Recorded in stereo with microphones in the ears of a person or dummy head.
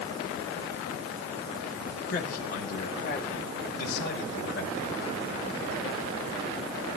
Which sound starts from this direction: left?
A man speaking, at 2.1 s.